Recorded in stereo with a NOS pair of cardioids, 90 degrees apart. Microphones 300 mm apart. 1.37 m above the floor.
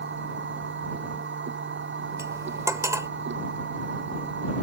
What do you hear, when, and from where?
0.0 s a machine running: 40° right
2.2 s cutlery clinking: 10° right